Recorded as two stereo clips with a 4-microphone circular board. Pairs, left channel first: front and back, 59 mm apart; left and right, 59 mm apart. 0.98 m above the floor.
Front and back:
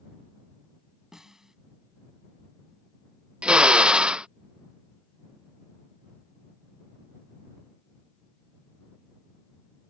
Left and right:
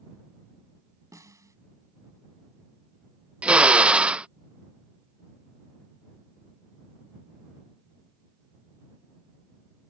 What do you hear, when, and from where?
1.1 s a snare drum: 100° right
3.4 s a drill: 130° right